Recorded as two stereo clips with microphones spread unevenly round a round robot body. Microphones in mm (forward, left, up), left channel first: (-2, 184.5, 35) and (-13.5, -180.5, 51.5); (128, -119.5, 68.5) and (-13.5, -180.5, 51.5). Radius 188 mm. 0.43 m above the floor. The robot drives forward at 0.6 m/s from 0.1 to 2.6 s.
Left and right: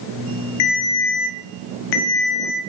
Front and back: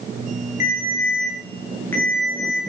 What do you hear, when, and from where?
0.6 s a ringtone: 80° left, 1.8 m; by 2.6 s 120° left, 2 m